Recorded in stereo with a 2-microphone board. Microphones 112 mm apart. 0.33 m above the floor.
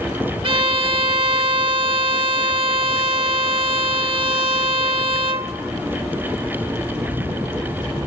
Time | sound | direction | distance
0.4 | a violin | 50° right (ahead or behind) | 0.6 m